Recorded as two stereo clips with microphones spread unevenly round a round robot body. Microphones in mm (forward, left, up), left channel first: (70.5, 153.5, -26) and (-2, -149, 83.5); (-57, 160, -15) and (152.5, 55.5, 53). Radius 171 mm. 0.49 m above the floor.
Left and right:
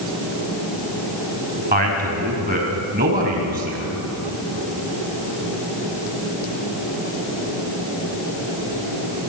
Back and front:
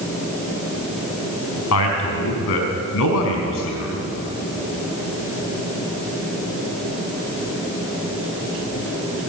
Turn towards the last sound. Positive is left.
turn(degrees=-170)